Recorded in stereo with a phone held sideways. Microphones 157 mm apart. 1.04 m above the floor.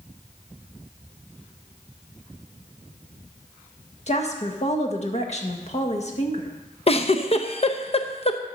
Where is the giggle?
40° left (ahead or behind), 0.7 m.